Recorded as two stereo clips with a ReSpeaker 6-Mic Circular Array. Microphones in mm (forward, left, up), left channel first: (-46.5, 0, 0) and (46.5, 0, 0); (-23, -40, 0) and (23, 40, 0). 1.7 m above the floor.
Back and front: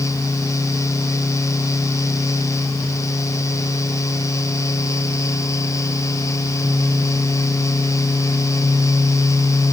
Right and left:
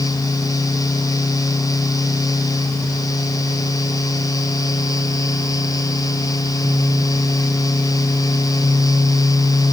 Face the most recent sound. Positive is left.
No sound to turn to.